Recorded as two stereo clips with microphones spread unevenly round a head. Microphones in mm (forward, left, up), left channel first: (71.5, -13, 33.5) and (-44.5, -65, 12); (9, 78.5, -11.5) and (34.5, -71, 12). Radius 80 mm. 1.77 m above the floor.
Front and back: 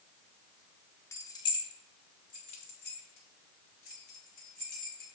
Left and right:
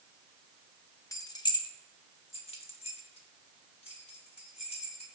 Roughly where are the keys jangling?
Ahead left.